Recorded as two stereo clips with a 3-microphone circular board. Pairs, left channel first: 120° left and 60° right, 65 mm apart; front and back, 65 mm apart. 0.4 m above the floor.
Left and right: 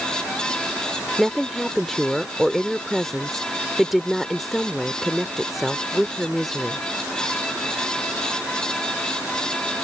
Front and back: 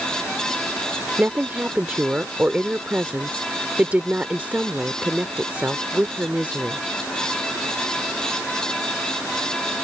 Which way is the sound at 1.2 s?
150° right.